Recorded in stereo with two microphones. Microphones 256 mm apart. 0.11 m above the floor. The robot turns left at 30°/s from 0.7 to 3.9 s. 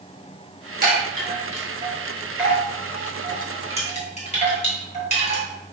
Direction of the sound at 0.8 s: 35° right (ahead or behind).